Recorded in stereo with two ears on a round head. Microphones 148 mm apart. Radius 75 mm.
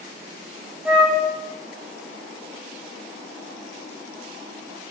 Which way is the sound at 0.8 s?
10° right (ahead or behind).